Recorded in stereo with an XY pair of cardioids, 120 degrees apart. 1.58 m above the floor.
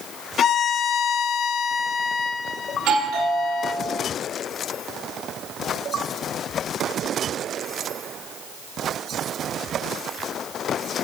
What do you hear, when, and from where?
0.4 s a violin: 50° left, 0.9 m
2.7 s a doorbell: 70° right, 4 m